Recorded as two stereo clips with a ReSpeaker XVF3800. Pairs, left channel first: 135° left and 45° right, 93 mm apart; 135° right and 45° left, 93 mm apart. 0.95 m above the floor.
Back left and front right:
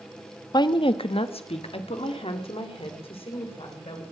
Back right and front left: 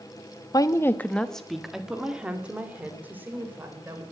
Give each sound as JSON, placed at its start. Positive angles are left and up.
{"t": 0.5, "sound": "a woman speaking", "azimuth_deg": 180, "distance_m": 0.8}